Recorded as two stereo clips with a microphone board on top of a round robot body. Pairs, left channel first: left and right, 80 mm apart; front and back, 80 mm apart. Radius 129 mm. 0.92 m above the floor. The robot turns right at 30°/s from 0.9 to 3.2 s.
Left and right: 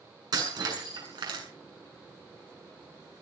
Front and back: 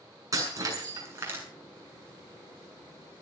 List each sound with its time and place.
0.3 s breaking glass: 130° right, 8 m; by 1.4 s 115° right, 8 m